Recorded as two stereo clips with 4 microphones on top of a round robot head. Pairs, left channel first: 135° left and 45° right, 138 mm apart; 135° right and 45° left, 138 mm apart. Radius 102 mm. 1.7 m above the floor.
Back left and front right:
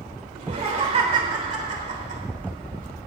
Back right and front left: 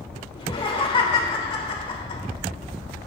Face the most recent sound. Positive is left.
turn(degrees=-85)